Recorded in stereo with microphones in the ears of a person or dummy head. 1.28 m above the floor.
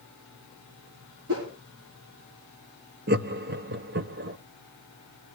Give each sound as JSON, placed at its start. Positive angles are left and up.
{"t": 1.3, "sound": "a whoosh", "side_deg": -80, "distance_m": 3.5}
{"t": 3.1, "sound": "laughter", "side_deg": -50, "distance_m": 0.8}